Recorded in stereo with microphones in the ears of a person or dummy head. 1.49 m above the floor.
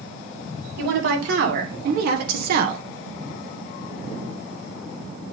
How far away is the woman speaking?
About 2.5 m.